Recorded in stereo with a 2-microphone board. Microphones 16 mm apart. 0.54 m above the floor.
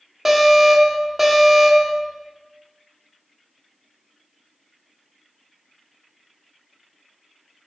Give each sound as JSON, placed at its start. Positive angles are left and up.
{"t": 0.2, "sound": "an alarm", "side_deg": -20, "distance_m": 1.3}